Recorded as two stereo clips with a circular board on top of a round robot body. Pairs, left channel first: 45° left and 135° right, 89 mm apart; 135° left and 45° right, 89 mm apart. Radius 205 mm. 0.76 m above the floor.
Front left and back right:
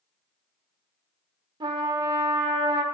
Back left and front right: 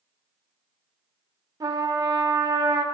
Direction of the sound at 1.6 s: 100° right.